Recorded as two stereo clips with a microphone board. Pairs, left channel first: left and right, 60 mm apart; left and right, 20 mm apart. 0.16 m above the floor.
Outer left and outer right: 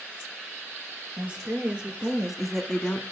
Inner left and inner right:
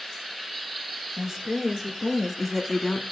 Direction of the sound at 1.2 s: 20° right (ahead or behind).